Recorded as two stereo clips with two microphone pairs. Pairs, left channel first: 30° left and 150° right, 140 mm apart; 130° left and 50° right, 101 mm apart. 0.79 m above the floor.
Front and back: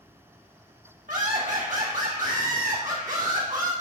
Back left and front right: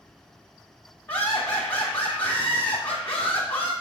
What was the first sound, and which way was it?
Laughter, 165° right.